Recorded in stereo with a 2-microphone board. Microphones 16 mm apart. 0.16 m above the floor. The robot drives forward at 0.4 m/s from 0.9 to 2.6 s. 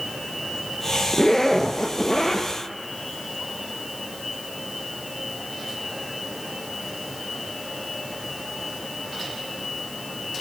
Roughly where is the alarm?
No alarm in this recording.